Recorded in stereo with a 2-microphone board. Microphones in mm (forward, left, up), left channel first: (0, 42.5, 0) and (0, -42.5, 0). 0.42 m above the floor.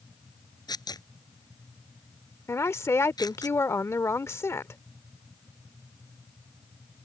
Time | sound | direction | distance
0.7 | tearing paper | 50° left (ahead or behind) | ?
2.5 | a woman speaking | 30° left (ahead or behind) | ?